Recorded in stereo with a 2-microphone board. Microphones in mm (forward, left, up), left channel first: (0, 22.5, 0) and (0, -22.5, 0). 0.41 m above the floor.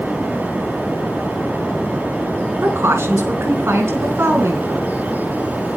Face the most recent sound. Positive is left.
turn(degrees=-75)  # may be behind; listen again after turning